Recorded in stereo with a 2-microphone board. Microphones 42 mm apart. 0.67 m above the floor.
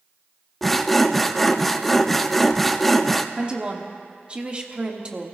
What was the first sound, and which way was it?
Sawing, 5° left (ahead or behind).